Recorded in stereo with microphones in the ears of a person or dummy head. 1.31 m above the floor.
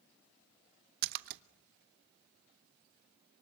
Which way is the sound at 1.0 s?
65° right (ahead or behind).